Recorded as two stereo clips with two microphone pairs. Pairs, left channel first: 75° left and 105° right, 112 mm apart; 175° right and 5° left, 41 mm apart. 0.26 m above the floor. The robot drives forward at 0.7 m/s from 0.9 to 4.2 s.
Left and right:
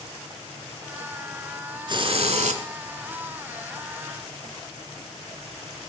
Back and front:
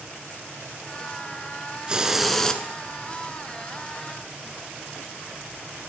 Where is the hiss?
60° right, 0.7 m; by 2.6 s 105° right, 0.7 m.